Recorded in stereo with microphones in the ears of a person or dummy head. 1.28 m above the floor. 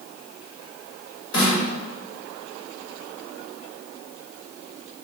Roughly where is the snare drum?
Left.